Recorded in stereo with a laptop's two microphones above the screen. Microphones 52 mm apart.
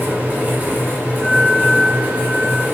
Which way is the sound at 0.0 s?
30° right (ahead or behind).